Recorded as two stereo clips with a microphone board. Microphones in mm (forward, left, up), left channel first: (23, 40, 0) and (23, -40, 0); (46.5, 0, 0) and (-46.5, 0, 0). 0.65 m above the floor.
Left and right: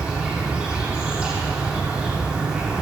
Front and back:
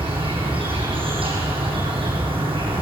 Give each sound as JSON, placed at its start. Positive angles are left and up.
{"t": 0.0, "sound": "an insect", "azimuth_deg": -165, "distance_m": 7.0}